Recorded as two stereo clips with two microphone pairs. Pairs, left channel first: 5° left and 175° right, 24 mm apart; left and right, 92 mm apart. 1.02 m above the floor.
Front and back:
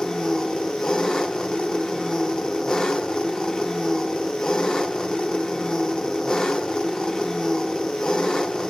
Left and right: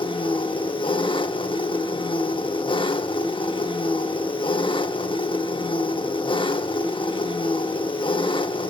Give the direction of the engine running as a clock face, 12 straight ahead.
10 o'clock.